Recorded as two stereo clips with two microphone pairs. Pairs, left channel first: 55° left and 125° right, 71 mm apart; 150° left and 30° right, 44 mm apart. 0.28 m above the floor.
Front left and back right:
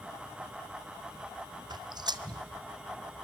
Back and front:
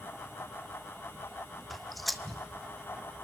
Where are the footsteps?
120° right, 0.7 m.